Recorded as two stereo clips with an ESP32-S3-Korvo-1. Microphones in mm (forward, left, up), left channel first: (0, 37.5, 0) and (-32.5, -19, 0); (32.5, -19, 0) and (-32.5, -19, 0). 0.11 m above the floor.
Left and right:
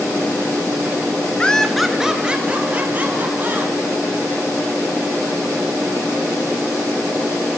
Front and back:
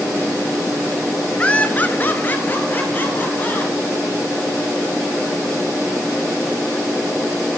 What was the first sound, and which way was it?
Laughter, 25° left.